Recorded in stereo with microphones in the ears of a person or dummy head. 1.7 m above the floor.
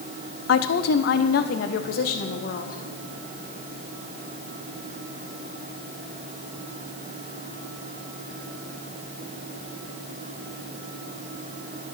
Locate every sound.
0.5 s a woman speaking: 75° left (ahead or behind), 1.0 m; by 2.8 s 55° left (ahead or behind), 2 m